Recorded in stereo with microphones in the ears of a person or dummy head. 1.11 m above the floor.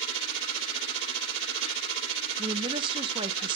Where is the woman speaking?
30° right (ahead or behind), 0.9 m.